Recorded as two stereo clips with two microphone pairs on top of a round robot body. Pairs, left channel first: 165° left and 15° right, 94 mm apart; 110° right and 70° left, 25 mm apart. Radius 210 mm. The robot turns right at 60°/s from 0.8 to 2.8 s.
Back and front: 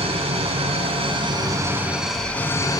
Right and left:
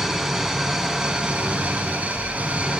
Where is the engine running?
5° right, 2.5 m; by 2.8 s 115° left, 2.5 m.